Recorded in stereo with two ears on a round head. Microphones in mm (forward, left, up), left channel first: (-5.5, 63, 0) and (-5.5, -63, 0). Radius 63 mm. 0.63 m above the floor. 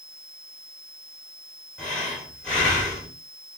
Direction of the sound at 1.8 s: 10° left (ahead or behind).